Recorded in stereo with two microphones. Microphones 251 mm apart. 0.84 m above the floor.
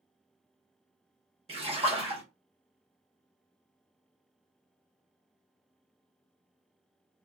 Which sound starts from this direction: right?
A splash, at 1.5 s.